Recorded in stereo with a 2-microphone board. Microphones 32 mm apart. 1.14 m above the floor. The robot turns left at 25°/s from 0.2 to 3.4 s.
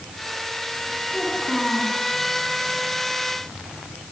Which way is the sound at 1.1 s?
5° right (ahead or behind).